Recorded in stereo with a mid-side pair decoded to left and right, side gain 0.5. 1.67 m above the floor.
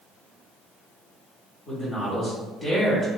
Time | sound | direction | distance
1.7 | a man speaking | 25° left | 1.2 m